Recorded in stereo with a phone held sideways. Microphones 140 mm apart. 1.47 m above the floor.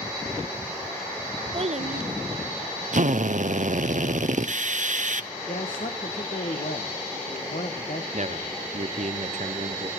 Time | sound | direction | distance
1.5 | a child speaking | 40° right (ahead or behind) | 0.5 m
2.9 | a drill | 65° right (ahead or behind) | 0.7 m
5.5 | a man speaking | 80° left | 1.2 m
8.1 | a man speaking | 55° right (ahead or behind) | 0.9 m